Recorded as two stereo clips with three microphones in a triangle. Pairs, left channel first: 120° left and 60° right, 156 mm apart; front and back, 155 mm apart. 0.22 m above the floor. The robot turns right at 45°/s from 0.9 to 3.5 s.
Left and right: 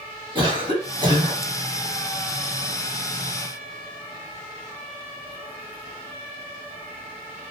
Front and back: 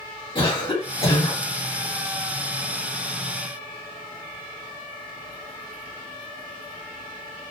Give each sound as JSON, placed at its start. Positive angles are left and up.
{"t": 0.3, "sound": "a cough", "azimuth_deg": -25, "distance_m": 1.7}